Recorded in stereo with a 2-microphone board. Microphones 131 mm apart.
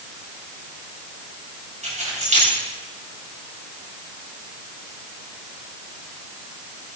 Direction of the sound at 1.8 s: 65° right (ahead or behind).